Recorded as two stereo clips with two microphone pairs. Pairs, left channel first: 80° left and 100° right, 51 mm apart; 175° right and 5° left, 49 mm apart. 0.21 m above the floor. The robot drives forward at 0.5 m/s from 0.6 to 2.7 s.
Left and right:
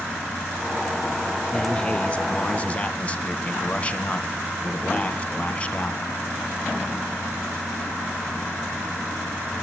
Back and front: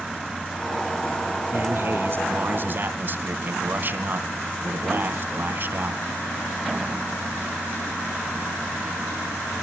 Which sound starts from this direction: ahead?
A man speaking, at 1.5 s.